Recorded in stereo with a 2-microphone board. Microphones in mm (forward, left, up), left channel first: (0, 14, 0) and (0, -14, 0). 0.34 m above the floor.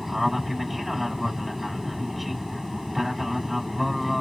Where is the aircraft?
Centre (ahead or behind).